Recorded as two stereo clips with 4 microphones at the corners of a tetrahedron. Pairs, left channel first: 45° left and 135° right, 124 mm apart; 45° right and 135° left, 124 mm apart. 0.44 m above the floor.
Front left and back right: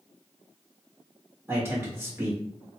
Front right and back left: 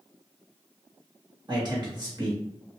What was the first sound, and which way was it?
A man speaking, 160° left.